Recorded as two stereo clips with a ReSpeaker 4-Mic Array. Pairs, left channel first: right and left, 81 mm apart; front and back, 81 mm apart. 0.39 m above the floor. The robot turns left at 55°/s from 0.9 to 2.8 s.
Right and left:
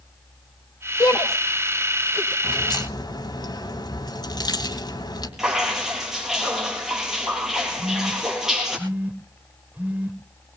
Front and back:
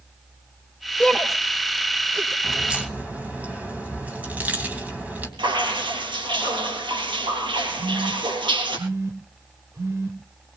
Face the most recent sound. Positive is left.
turn(degrees=150)